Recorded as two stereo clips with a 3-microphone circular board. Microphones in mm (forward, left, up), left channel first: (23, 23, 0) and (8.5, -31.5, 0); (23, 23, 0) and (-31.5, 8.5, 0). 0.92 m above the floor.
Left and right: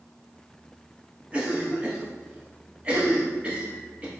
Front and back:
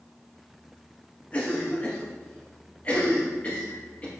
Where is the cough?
45° right, 1.0 m.